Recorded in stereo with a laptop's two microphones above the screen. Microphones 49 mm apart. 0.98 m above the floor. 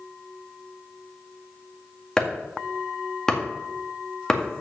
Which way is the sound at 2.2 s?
10° left (ahead or behind).